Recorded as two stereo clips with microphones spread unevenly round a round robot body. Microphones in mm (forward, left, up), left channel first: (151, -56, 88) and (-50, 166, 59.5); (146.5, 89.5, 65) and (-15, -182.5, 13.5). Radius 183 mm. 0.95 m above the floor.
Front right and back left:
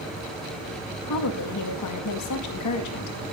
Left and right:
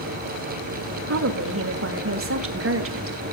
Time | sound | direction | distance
1.1 | a woman speaking | 80° right | 1.9 m